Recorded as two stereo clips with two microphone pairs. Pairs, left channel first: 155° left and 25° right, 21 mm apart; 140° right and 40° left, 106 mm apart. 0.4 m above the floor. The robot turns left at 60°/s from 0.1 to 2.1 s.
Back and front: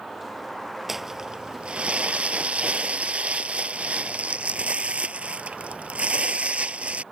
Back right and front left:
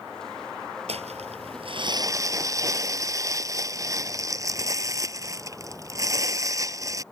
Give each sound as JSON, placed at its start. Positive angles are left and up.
{"t": 0.9, "sound": "crumpling", "azimuth_deg": 55}